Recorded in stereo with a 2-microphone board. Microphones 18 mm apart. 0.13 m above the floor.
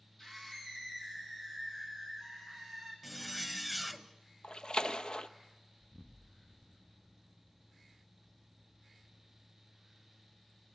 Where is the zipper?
5° left (ahead or behind), 0.9 m.